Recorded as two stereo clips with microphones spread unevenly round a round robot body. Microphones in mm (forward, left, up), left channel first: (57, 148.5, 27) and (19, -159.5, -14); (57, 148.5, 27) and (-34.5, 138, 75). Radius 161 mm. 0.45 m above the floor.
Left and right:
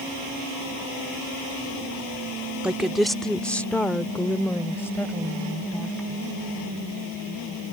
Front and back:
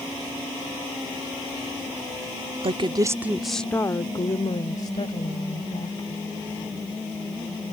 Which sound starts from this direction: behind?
A woman speaking, at 2.6 s.